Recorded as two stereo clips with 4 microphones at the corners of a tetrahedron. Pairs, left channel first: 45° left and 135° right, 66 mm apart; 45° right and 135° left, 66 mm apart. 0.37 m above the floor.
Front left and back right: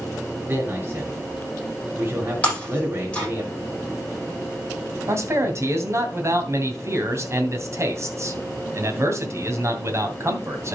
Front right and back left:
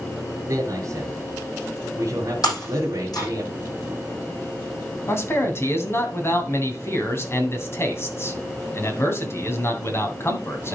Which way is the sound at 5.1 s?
95° right.